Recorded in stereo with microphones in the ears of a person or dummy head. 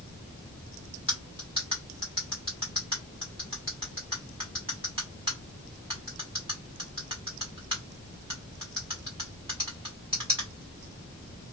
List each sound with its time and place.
1.1 s cutlery clinking: 20° right (ahead or behind), 1.2 m